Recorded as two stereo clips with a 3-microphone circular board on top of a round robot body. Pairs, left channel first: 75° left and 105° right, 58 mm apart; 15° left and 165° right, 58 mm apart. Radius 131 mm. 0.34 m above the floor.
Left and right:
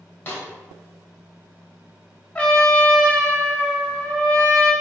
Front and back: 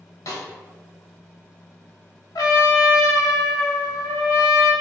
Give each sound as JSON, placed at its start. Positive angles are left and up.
{"t": 0.3, "sound": "a snare drum", "azimuth_deg": 15, "distance_m": 2.0}
{"t": 2.4, "sound": "a trumpet", "azimuth_deg": 5, "distance_m": 1.1}